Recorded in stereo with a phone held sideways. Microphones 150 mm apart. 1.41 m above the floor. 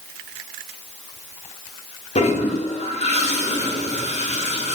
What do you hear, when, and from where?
2.1 s a toilet flushing: 50° left (ahead or behind), 0.6 m